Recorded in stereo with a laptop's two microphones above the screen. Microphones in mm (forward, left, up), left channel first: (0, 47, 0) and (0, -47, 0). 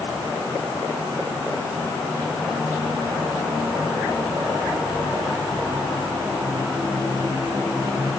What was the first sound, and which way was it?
Only background noise.